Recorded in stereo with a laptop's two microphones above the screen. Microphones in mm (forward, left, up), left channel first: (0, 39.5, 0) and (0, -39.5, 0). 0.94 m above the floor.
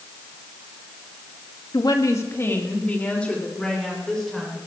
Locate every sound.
1.7 s a woman speaking: 55° left (ahead or behind), 1.8 m; by 4.6 s 5° left (ahead or behind), 5 m